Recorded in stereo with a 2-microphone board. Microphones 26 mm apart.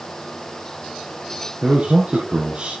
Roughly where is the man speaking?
Right.